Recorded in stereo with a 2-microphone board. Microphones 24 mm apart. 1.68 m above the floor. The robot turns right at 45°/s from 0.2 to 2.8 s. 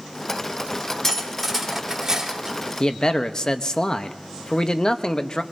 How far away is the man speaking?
About 0.9 m.